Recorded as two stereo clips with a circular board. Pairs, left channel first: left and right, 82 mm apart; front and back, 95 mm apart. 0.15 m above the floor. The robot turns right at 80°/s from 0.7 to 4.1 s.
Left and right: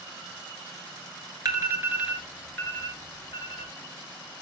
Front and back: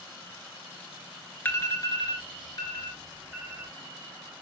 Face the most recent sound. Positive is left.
turn(degrees=145)